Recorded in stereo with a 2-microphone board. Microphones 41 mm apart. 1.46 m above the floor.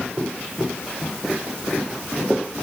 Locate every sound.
Only background noise.